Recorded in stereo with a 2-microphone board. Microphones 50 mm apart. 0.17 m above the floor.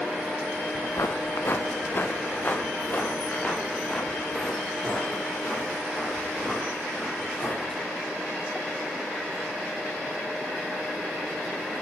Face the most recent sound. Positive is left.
turn(degrees=15)  # may be behind; listen again after turning